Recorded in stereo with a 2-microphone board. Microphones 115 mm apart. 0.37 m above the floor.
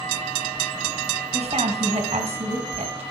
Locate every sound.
1.3 s a woman speaking: 65° right (ahead or behind), 2 m